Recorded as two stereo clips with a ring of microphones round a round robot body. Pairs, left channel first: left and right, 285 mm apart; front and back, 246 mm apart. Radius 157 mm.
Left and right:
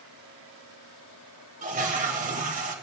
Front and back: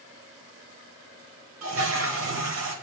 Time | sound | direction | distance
1.6 | a toilet flushing | 150° right | 1.8 m